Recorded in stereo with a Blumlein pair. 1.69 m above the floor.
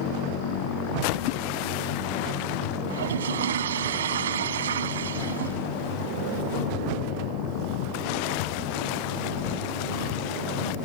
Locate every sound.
2.9 s a toilet flushing: 65° right